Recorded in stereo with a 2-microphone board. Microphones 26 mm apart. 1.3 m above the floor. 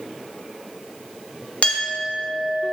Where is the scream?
I don't hear a scream.